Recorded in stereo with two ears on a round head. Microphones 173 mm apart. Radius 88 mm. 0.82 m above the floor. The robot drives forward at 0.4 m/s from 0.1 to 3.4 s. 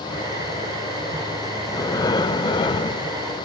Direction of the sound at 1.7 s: 15° left (ahead or behind).